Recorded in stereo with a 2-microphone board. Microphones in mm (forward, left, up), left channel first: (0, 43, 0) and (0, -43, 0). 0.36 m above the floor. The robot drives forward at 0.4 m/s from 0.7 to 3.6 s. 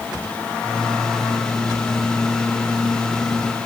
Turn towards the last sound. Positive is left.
No sound to turn to.